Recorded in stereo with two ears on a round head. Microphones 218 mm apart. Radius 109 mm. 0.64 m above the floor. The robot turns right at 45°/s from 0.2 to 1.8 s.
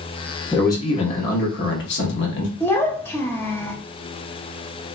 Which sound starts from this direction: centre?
A child speaking, at 2.6 s.